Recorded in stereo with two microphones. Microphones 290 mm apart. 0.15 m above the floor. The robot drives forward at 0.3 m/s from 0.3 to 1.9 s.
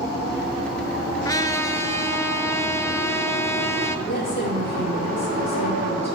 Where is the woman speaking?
35° left (ahead or behind), 5.5 m.